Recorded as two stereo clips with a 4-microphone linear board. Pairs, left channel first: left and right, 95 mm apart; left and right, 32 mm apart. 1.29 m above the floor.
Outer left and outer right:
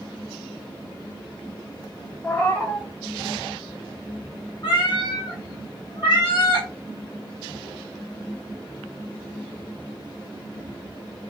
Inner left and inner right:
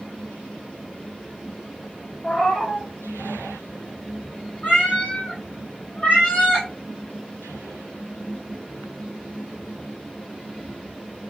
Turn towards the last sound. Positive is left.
turn(degrees=50)  # may be behind; listen again after turning